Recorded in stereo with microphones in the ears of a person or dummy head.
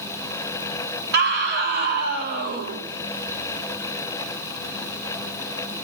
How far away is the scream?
About 2.5 m.